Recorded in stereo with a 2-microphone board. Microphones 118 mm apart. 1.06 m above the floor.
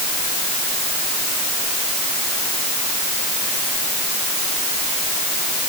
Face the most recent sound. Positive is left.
No sound to turn to.